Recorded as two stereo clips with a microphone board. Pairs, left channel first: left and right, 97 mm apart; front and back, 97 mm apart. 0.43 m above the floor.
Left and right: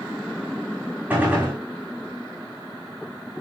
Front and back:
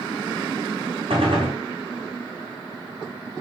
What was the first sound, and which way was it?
A gunshot, 165° right.